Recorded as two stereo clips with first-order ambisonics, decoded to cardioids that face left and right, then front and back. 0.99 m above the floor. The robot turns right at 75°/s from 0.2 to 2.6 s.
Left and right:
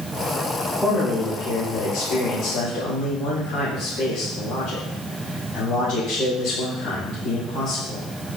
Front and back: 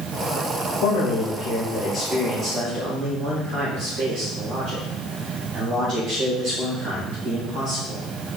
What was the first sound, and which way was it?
A man speaking, 5° left.